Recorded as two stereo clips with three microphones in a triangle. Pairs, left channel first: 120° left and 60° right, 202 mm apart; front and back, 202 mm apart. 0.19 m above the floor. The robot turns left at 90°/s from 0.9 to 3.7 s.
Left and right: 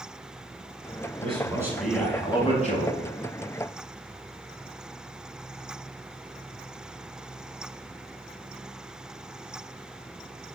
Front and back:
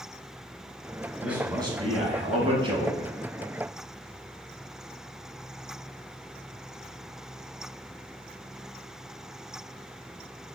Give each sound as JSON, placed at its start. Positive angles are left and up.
{"t": 1.2, "sound": "a man speaking", "azimuth_deg": -95, "distance_m": 1.1}